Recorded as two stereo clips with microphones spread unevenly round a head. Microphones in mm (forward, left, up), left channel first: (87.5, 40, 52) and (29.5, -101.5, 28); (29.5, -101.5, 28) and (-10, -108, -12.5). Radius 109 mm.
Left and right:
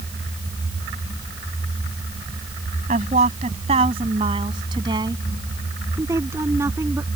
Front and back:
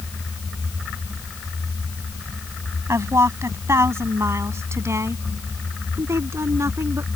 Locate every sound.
2.9 s a woman speaking: 170° right; by 7.1 s 165° left